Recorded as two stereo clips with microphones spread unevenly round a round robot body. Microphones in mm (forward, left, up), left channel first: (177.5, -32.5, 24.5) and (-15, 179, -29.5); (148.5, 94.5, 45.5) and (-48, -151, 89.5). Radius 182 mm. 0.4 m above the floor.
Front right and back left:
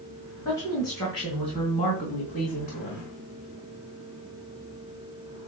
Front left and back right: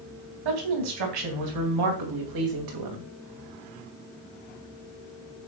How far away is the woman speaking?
About 3.5 m.